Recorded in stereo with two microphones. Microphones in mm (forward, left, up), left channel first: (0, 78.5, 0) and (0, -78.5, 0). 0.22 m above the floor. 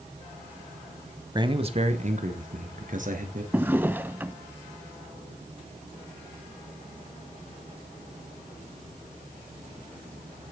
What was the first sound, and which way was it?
A man speaking, 25° right (ahead or behind).